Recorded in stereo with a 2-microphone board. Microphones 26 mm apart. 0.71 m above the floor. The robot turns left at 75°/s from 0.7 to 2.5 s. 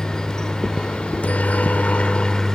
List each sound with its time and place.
0.0 s a helicopter: 155° left; by 2.6 s 20° left